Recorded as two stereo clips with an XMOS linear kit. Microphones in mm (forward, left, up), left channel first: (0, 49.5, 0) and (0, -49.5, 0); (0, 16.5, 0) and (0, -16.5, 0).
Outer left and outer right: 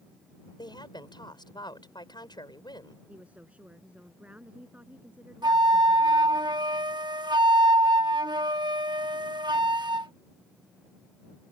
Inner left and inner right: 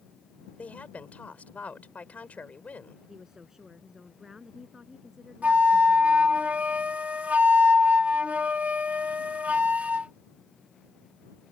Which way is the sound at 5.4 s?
45° right (ahead or behind).